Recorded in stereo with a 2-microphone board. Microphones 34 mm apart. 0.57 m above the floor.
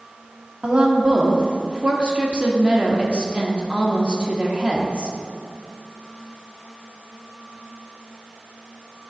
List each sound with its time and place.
0.6 s a woman speaking: 30° right (ahead or behind), 1.1 m